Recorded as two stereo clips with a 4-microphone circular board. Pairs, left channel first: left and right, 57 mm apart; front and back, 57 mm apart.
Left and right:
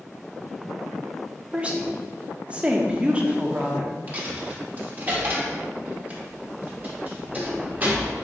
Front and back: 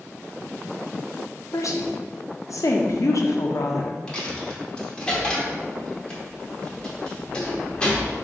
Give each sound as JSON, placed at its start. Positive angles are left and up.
{"t": 1.5, "sound": "a woman speaking", "azimuth_deg": -20, "distance_m": 0.6}
{"t": 4.1, "sound": "a dropped coin", "azimuth_deg": -60, "distance_m": 0.9}